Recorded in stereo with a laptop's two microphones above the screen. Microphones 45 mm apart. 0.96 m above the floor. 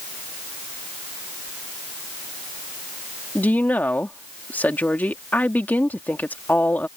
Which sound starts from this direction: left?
A woman speaking, at 3.4 s.